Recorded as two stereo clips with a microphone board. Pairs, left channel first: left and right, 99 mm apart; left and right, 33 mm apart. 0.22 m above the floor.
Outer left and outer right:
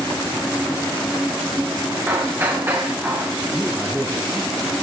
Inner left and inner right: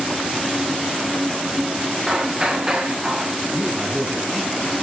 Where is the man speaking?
20° right (ahead or behind), 3.5 m.